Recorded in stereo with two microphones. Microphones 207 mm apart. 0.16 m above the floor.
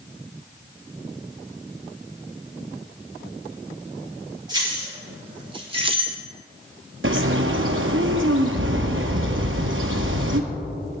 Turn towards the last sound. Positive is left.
turn(degrees=-80)